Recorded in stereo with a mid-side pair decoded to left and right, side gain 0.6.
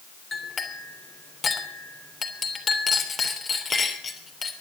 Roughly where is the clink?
Ahead left.